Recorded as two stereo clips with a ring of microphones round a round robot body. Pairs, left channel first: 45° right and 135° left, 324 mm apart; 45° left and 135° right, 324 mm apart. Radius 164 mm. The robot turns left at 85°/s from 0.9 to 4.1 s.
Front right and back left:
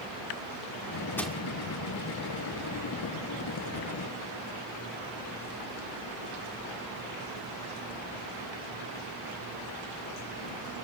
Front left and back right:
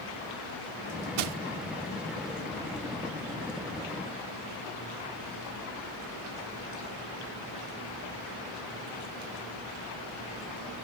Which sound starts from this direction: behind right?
Crushing, at 1.2 s.